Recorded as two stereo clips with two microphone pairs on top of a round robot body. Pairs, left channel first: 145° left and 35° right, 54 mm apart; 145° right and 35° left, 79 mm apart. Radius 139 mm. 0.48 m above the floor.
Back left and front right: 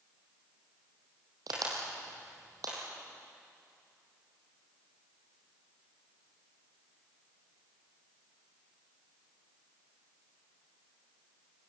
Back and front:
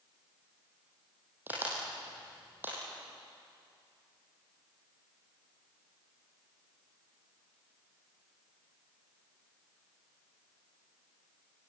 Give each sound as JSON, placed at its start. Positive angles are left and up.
{"t": 1.5, "sound": "a crack", "azimuth_deg": -35, "distance_m": 6.0}